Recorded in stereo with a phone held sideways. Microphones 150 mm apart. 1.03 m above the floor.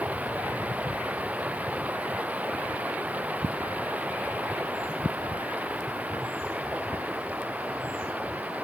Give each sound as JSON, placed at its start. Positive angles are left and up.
{"t": 0.0, "sound": "running water", "side_deg": -10}